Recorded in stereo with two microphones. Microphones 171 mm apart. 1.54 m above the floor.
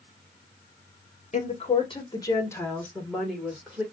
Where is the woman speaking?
45° left (ahead or behind), 1.3 m; by 3.8 s 5° right (ahead or behind), 2 m.